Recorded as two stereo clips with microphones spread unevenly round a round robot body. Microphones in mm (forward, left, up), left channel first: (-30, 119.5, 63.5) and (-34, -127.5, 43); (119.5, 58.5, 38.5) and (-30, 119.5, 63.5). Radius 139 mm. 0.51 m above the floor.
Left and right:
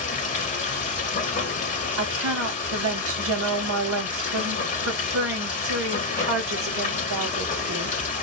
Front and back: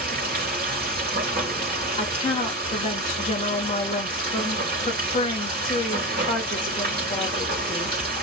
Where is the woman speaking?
75° right, 1.6 m.